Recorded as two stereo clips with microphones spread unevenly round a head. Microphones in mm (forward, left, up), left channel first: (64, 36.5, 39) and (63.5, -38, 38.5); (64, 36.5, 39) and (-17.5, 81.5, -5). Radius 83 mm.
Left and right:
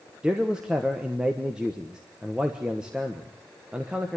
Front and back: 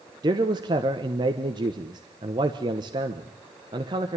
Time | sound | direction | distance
0.2 | a man speaking | 170° right | 1.1 m